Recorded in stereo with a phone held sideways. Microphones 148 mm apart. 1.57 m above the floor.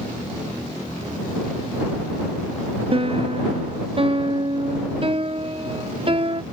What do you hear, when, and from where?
2.9 s a piano: 40° right (ahead or behind)